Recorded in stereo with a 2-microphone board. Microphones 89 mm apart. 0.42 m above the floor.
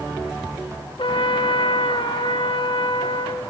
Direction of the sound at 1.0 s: 70° left (ahead or behind).